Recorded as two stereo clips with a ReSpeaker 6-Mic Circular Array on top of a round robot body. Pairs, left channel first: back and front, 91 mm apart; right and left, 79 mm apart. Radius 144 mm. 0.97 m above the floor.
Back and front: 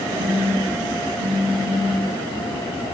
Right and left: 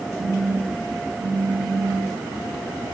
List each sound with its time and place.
0.2 s a phone buzzing: 30° left, 5 m